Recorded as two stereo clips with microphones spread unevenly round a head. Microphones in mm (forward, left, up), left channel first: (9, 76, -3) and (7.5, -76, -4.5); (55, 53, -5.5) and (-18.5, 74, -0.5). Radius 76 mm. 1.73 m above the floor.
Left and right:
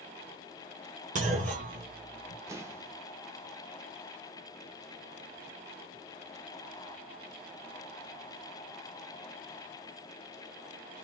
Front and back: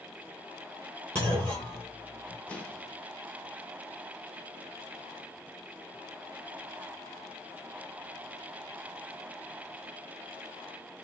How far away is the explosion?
About 0.9 m.